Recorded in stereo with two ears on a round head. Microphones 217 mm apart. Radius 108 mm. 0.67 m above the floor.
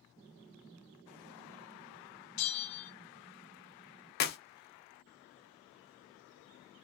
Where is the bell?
80° left, 0.9 m.